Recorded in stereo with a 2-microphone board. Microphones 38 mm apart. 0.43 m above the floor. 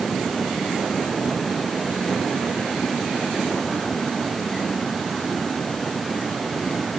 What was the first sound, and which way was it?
Only background noise.